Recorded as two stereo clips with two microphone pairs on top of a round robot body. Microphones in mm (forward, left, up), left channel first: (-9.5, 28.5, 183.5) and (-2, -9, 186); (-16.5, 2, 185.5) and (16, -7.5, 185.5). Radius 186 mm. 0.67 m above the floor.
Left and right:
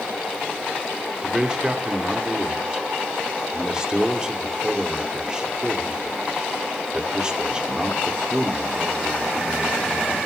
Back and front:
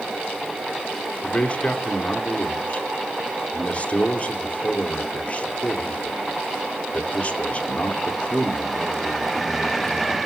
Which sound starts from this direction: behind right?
A man speaking, at 1.2 s.